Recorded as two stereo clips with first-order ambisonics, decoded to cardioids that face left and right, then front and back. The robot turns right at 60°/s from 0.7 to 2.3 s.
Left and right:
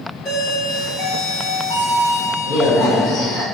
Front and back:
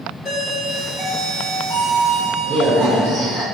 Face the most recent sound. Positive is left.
turn(degrees=135)